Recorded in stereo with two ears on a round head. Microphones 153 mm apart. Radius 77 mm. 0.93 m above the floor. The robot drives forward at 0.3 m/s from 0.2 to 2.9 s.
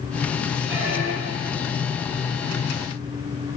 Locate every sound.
0.7 s a squeak: 45° right (ahead or behind), 1.3 m; by 1.7 s 40° right (ahead or behind), 1.4 m